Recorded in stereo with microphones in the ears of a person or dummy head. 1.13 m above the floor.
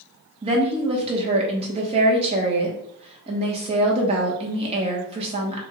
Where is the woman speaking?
35° right (ahead or behind), 0.8 m.